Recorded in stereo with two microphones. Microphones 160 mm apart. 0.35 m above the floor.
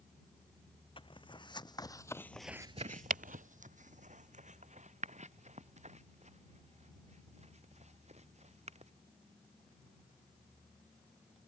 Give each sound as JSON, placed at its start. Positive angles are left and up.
{"t": 1.0, "sound": "footsteps", "side_deg": 30}